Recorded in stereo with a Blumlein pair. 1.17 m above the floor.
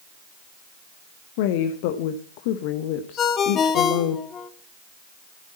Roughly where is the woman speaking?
Ahead left.